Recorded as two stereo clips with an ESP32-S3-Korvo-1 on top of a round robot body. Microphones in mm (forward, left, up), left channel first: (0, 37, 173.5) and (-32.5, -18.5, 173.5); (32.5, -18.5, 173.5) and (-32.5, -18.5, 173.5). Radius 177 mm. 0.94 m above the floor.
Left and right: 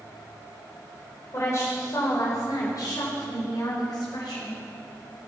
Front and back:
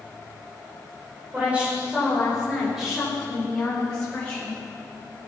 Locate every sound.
1.3 s a woman speaking: 110° left, 4.5 m; by 4.6 s 75° left, 5.5 m